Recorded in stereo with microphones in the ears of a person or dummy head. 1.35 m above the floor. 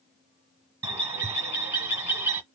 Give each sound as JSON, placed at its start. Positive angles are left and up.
{"t": 0.8, "sound": "a bird", "side_deg": -15, "distance_m": 1.5}